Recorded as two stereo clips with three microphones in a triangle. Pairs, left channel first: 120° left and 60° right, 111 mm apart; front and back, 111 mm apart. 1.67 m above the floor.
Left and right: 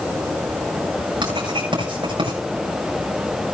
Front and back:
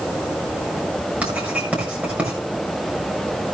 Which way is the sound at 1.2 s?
105° right.